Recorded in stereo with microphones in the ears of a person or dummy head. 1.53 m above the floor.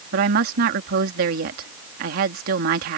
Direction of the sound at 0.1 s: 55° right (ahead or behind).